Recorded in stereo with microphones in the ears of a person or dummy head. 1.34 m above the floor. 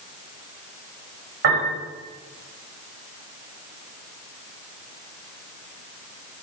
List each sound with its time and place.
1.4 s a piano: 55° right (ahead or behind), 5.5 m